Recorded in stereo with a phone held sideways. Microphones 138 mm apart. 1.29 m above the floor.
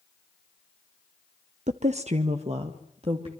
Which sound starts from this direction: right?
A woman speaking, at 1.7 s.